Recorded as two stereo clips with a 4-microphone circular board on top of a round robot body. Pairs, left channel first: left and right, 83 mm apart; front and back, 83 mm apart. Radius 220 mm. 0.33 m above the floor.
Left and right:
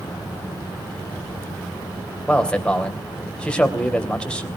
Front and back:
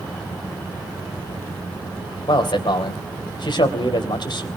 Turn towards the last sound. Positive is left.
turn(degrees=15)